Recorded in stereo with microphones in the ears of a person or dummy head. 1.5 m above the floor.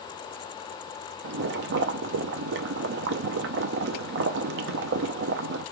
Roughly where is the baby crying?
I don't hear a baby crying.